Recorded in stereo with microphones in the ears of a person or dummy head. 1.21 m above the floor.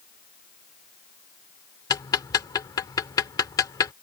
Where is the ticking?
20° left (ahead or behind).